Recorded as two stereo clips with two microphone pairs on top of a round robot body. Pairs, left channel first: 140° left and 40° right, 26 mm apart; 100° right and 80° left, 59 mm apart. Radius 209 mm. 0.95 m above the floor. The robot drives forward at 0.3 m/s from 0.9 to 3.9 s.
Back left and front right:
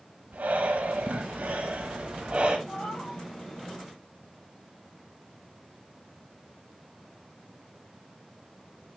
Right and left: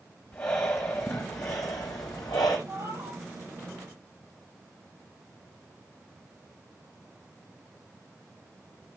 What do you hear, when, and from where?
0.3 s breathing: 50° right, 0.9 m; by 2.6 s 115° right, 0.8 m
2.7 s a cat meowing: 115° left, 9 m